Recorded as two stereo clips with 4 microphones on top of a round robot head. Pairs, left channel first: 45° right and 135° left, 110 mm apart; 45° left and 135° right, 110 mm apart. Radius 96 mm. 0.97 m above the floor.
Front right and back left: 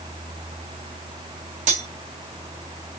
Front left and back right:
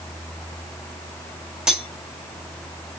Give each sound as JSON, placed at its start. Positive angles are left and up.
{"t": 1.7, "sound": "cutlery clinking", "azimuth_deg": 140, "distance_m": 1.0}